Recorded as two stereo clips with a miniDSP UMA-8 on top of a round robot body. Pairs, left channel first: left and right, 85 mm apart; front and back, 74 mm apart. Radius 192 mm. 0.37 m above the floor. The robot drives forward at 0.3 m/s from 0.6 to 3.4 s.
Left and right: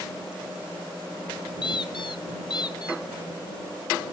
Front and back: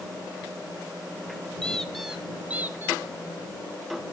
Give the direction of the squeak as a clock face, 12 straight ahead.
10 o'clock.